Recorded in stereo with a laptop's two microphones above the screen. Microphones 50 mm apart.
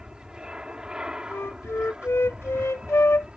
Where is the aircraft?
15° right (ahead or behind).